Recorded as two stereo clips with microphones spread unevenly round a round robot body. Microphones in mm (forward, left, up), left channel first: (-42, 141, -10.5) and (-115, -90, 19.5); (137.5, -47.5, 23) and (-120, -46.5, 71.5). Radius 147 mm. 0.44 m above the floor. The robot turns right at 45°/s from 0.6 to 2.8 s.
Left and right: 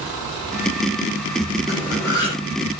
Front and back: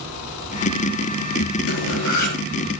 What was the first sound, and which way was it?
Cutlery clinking, 30° right.